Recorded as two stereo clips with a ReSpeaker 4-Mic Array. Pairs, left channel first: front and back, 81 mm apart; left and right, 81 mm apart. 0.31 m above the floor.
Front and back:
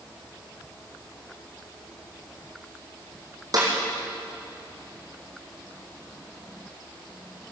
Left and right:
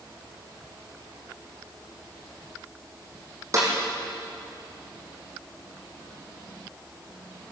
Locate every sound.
3.5 s a snare drum: 140° right, 5.5 m